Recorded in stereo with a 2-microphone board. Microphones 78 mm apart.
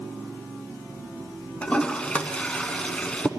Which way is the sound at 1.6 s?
15° left (ahead or behind).